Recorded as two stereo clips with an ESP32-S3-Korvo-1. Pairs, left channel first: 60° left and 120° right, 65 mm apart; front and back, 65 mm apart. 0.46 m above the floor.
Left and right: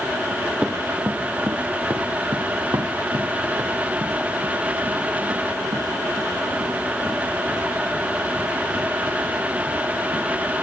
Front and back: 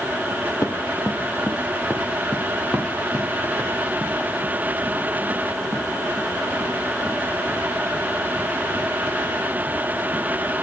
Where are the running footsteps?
45° right, 2.5 m; by 10.5 s 115° right, 10.5 m.